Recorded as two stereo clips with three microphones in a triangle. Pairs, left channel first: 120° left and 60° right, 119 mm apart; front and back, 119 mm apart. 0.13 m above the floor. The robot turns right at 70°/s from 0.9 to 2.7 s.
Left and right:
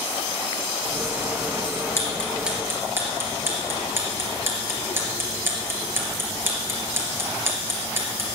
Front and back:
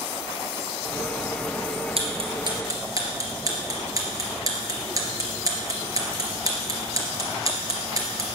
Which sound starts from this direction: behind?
Ticking, at 2.0 s.